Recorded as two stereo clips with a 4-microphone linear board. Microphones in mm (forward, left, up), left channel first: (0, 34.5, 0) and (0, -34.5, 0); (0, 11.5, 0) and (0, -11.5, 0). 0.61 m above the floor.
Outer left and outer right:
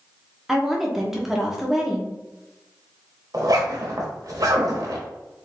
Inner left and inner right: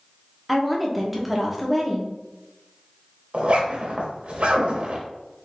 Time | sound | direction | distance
0.5 | a woman speaking | 5° right (ahead or behind) | 1.0 m
3.3 | a zipper | 60° right (ahead or behind) | 1.2 m